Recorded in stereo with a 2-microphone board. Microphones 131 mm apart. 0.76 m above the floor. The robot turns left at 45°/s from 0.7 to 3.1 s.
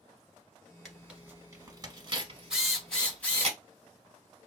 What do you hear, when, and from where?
0.8 s tearing paper: centre (ahead or behind), 0.9 m; by 3.5 s 50° right (ahead or behind), 0.9 m
2.5 s a drill: 5° right (ahead or behind), 1.2 m; by 3.5 s 10° left (ahead or behind), 1.2 m